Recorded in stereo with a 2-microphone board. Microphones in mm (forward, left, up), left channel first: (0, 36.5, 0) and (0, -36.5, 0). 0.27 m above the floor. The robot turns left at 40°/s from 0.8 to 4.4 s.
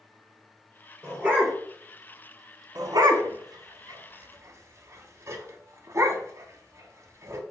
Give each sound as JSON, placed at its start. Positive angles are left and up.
{"t": 1.0, "sound": "a dog barking", "side_deg": -35, "distance_m": 1.1}
{"t": 2.8, "sound": "a dog barking", "side_deg": -60, "distance_m": 0.6}